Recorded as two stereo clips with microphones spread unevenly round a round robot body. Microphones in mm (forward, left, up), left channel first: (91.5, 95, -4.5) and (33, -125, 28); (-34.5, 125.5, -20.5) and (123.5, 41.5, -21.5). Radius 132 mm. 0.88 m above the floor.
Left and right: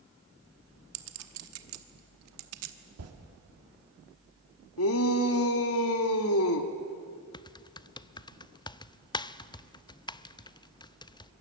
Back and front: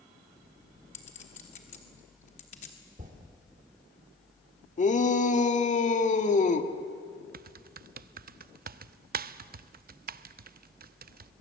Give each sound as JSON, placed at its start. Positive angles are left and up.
{"t": 0.9, "sound": "a clink", "azimuth_deg": -140, "distance_m": 1.0}
{"t": 3.0, "sound": "a toilet flushing", "azimuth_deg": -90, "distance_m": 2.0}
{"t": 4.8, "sound": "a shout", "azimuth_deg": 105, "distance_m": 1.7}
{"t": 7.3, "sound": "typing on a keyboard", "azimuth_deg": 5, "distance_m": 0.6}